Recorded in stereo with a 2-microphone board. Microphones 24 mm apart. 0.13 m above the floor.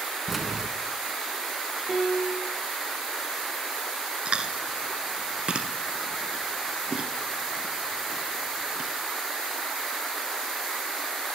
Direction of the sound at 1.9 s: 20° right (ahead or behind).